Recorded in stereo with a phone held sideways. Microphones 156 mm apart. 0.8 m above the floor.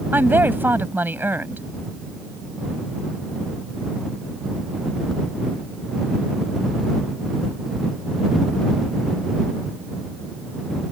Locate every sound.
0.1 s a woman speaking: 15° right (ahead or behind)